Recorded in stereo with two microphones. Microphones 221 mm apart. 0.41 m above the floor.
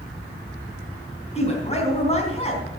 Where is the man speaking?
30° left (ahead or behind), 3.5 m.